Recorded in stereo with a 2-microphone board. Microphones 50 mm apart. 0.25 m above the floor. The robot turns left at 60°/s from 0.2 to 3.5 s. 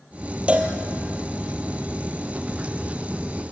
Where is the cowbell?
25° right (ahead or behind), 2 m; by 0.7 s 40° right (ahead or behind), 2 m.